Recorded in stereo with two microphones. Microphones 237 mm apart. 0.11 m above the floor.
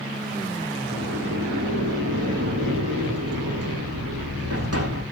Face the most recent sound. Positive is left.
turn(degrees=-75)  # may be behind; listen again after turning